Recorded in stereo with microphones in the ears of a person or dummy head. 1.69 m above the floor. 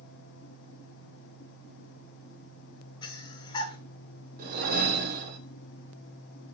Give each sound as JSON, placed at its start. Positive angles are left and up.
{"t": 3.0, "sound": "breathing", "side_deg": 25, "distance_m": 0.5}
{"t": 4.4, "sound": "a whoosh", "side_deg": -50, "distance_m": 0.6}